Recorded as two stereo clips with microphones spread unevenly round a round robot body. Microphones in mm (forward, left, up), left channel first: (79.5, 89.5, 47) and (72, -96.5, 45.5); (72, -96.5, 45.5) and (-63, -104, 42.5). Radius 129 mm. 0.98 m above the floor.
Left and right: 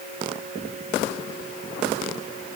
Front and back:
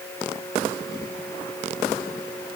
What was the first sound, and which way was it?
Only background noise.